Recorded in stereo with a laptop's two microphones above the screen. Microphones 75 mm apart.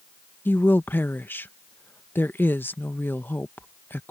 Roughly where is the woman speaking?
Left.